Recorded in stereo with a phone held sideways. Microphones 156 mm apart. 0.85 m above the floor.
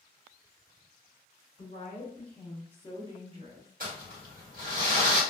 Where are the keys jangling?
I don't hear keys jangling.